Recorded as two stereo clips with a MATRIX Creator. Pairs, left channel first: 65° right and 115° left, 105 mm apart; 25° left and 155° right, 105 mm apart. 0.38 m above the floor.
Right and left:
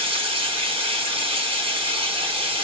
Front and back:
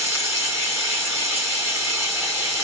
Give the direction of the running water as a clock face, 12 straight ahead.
7 o'clock.